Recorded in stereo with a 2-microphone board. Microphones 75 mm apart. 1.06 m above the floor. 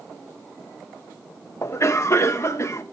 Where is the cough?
40° left (ahead or behind), 0.9 m.